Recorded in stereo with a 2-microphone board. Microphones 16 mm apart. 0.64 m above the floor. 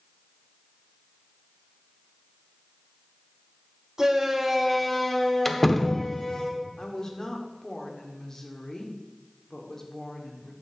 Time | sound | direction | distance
4.0 | a shout | 35° right (ahead or behind) | 1.9 m
5.5 | a door slam | 10° left (ahead or behind) | 0.9 m
6.8 | a woman speaking | 35° left (ahead or behind) | 1.8 m